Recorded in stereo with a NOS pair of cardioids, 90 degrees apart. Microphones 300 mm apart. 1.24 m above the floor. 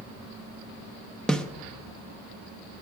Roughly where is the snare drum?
Ahead.